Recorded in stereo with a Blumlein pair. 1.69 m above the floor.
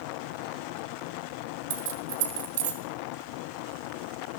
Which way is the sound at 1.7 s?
55° right.